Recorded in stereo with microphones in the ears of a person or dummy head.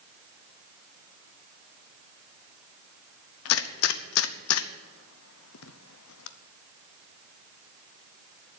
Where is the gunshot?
80° left, 0.9 m.